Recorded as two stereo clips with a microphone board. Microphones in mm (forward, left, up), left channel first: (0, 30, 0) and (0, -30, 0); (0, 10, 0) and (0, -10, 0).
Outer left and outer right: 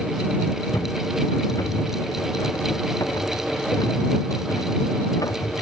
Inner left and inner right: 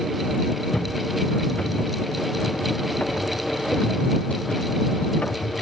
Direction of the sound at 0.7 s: 70° left (ahead or behind).